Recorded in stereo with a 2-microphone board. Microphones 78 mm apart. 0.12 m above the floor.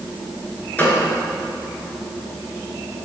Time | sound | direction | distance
0.8 | a gunshot | 20° left (ahead or behind) | 2 m